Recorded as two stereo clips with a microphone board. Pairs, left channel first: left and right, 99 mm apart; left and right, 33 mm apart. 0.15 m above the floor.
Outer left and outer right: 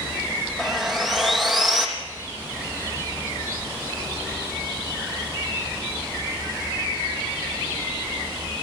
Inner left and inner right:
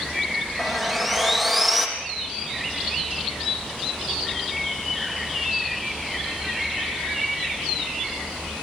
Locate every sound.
0.6 s sawing: centre (ahead or behind), 4 m